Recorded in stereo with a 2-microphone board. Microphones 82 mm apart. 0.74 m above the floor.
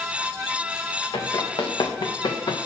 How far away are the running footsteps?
About 3.5 m.